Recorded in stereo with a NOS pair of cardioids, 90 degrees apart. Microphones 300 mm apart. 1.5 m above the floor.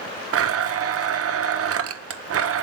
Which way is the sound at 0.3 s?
50° right.